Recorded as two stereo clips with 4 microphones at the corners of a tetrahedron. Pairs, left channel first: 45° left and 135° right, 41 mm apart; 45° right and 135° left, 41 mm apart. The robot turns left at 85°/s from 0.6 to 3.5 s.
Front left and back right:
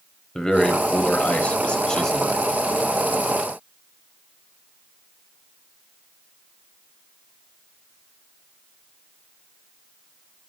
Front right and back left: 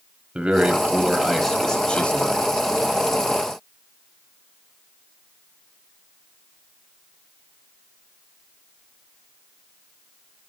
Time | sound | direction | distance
0.3 | a man speaking | 110° left | 1.2 m